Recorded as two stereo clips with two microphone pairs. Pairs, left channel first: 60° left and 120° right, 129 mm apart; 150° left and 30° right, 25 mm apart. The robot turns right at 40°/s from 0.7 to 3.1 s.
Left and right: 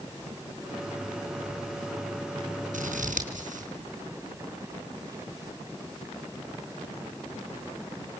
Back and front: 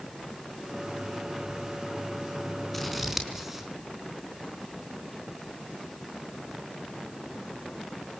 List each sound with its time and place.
2.7 s scissors: 125° right, 4.5 m; by 3.7 s 110° right, 4.5 m